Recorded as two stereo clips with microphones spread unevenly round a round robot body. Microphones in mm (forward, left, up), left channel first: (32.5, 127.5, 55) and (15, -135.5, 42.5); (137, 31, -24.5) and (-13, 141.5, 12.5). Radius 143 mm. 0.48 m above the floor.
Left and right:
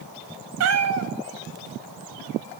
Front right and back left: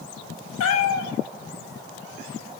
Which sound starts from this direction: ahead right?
A cat meowing, at 0.6 s.